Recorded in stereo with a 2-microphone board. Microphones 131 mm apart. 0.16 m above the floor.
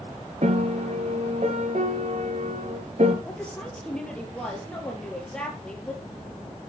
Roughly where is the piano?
Right.